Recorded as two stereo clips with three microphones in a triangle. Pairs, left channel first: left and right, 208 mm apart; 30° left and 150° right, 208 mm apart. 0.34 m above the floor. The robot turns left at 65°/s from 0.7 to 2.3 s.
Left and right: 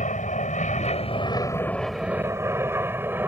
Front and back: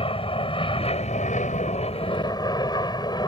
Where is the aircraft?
75° left; by 3.3 s 20° right.